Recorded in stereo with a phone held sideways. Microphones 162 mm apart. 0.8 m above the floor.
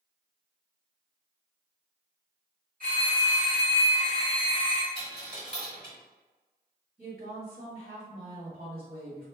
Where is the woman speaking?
55° right (ahead or behind), 1.5 m.